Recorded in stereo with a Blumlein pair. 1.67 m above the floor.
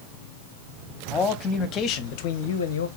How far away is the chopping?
I don't hear chopping.